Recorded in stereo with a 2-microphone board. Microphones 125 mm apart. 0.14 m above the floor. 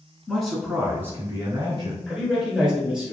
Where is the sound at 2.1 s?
5° right (ahead or behind), 1.7 m.